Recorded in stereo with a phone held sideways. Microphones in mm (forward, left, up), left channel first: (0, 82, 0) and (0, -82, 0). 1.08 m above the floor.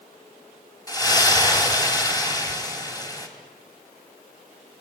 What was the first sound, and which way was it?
A splash, 25° left (ahead or behind).